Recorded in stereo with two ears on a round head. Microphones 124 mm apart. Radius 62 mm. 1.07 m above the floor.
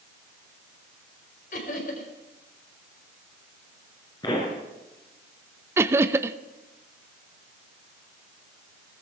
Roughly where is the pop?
Left.